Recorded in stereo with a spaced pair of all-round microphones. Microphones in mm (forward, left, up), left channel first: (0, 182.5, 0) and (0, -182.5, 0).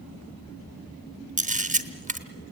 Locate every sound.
1.4 s a camera shutter: 20° right (ahead or behind), 1.1 m